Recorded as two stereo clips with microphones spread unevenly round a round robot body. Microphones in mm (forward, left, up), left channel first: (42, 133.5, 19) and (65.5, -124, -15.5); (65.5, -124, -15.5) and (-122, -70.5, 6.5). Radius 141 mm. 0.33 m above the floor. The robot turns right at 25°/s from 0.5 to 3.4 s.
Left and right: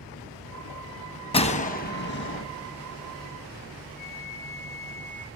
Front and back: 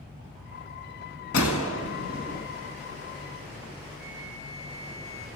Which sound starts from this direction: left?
A flute, at 4.0 s.